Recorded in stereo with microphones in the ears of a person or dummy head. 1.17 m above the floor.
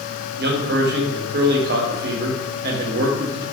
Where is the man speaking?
50° right (ahead or behind), 0.5 m.